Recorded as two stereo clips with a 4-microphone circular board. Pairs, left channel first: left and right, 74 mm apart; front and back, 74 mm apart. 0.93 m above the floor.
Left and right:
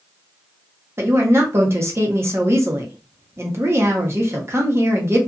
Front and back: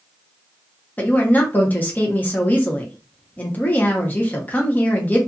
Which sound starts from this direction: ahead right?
A woman speaking, at 1.0 s.